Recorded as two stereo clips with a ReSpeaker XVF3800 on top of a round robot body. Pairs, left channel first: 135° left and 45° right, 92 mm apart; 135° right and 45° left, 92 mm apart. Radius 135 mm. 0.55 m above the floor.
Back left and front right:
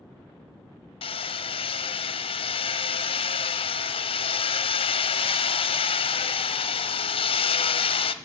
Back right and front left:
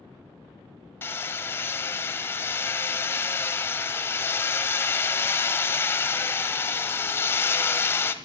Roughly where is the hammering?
Behind left.